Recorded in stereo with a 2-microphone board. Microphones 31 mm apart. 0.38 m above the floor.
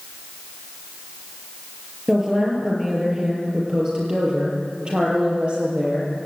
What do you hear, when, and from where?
2.1 s a woman speaking: 15° right (ahead or behind), 7 m; by 6.3 s 35° right (ahead or behind), 8.5 m